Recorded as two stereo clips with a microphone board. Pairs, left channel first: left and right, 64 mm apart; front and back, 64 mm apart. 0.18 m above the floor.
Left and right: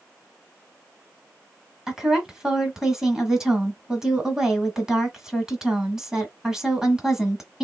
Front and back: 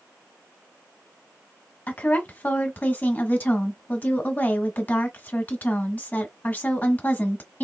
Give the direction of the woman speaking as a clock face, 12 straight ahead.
1 o'clock.